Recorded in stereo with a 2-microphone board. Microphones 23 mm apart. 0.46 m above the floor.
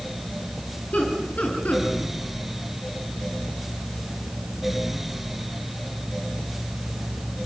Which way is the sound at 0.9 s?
75° left (ahead or behind).